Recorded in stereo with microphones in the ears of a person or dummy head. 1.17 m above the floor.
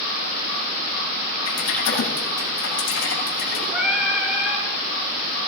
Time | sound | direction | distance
1.5 | typing on a keyboard | 75° left (ahead or behind) | 9.5 m
3.7 | singing | 5° right (ahead or behind) | 9 m